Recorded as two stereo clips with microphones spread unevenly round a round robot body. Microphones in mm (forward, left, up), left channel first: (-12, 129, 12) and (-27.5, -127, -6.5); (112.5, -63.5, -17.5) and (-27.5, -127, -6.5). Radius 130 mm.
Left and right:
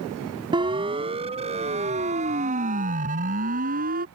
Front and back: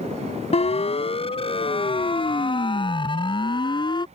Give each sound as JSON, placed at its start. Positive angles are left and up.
{"t": 0.5, "sound": "a siren", "azimuth_deg": -20}